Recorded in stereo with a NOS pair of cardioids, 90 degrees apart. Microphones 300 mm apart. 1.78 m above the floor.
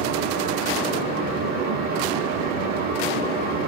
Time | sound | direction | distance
0.0 | a fan | 70° right | 1.4 m